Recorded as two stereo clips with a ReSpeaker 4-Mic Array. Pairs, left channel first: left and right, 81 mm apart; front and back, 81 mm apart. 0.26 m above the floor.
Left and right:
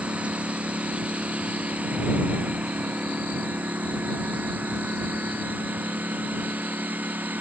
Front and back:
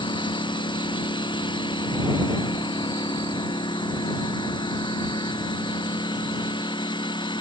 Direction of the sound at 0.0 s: 15° right.